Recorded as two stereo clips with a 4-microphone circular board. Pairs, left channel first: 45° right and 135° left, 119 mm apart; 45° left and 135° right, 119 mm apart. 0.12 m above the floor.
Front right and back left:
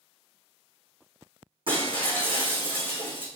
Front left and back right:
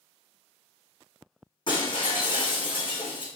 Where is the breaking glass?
95° left, 3.5 m.